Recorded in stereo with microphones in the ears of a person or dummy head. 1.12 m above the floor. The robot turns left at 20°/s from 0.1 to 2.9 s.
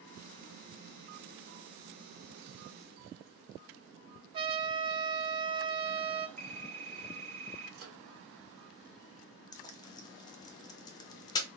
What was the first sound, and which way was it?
A trumpet, 30° right (ahead or behind).